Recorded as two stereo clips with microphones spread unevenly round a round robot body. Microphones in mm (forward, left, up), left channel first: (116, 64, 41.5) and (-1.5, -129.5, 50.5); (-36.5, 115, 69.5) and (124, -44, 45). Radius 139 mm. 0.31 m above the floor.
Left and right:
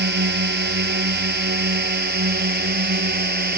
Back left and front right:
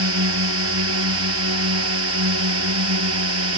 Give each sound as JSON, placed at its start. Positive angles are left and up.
{"t": 0.0, "sound": "a drone", "azimuth_deg": -80}